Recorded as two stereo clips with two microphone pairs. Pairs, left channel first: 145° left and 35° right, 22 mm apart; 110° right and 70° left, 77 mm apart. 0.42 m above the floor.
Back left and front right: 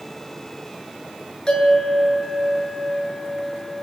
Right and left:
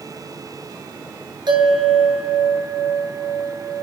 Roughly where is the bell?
Left.